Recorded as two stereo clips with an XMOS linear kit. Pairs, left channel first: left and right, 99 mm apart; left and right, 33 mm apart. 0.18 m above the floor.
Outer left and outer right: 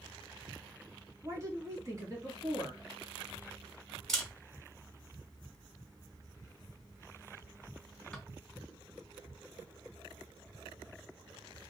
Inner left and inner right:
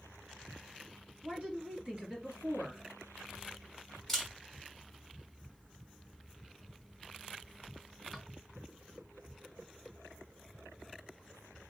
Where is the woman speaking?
35° right (ahead or behind), 1.5 m.